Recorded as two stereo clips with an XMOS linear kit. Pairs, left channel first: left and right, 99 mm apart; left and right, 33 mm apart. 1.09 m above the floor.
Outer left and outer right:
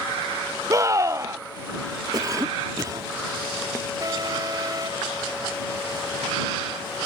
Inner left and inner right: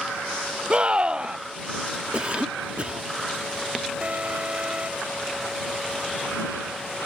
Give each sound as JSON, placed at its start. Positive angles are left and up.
{"t": 0.7, "sound": "a scream", "side_deg": -35}
{"t": 2.1, "sound": "a cough", "side_deg": -40}
{"t": 4.0, "sound": "an alarm", "side_deg": -40}